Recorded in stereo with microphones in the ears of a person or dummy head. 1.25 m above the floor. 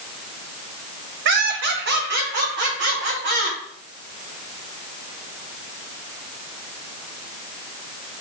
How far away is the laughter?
About 1.4 m.